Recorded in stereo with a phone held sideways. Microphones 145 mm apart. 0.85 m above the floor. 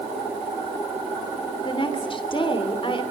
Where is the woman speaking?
35° left (ahead or behind), 2.5 m.